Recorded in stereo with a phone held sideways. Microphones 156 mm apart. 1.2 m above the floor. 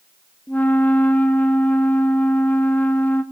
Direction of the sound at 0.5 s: 10° left (ahead or behind).